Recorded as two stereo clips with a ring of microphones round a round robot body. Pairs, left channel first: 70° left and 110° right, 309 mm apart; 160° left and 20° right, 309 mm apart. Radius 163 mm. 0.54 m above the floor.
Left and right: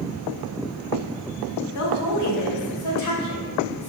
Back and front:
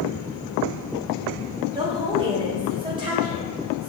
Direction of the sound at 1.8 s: 50° left.